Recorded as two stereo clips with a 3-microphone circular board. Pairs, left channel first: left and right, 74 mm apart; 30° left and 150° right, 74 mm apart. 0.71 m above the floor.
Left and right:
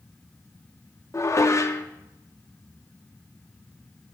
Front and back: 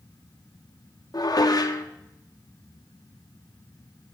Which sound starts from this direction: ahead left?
Dishes clattering, at 1.1 s.